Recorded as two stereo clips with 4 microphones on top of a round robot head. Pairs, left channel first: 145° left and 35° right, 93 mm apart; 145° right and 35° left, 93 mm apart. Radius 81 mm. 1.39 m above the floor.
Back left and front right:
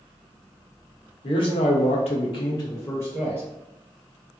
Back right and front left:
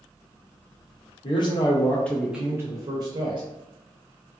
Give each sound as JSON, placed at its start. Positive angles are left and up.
{"t": 1.2, "sound": "a man speaking", "azimuth_deg": 180, "distance_m": 0.7}